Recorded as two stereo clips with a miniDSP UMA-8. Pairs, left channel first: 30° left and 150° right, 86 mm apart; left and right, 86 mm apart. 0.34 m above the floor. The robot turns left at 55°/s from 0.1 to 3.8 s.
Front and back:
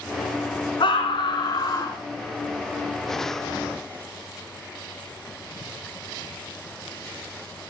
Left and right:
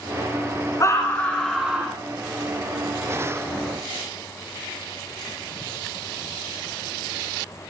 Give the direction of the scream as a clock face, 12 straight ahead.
11 o'clock.